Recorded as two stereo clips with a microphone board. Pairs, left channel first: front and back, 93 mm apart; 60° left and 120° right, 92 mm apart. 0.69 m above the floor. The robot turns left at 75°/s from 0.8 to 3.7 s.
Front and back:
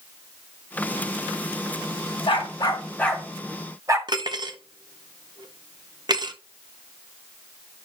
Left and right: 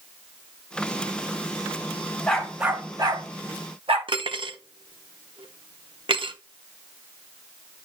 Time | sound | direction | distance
2.3 | a dog barking | 20° right | 1.5 m
4.1 | cutlery clinking | 140° right | 0.9 m